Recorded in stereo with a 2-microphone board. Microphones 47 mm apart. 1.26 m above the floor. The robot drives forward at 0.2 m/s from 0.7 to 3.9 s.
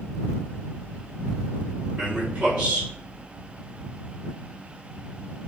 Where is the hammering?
I don't hear hammering.